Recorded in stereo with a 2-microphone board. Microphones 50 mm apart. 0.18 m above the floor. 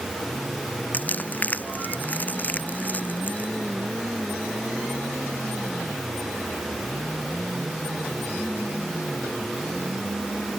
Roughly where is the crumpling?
Left.